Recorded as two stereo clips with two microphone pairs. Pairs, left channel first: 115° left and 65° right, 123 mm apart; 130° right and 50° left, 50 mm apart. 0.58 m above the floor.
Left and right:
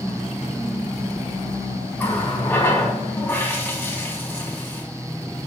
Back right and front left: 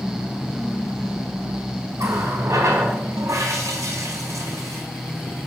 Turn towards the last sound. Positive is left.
turn(degrees=40)